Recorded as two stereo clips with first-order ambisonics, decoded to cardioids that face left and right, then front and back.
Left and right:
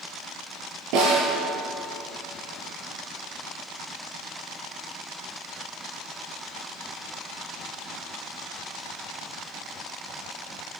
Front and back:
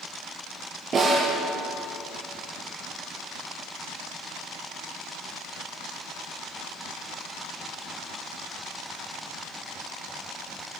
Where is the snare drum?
110° right, 8 m.